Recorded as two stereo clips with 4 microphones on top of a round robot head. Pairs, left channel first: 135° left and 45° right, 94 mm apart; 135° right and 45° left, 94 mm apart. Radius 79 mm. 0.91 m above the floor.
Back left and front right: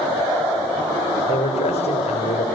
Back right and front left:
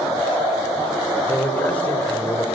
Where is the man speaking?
150° left, 3.5 m.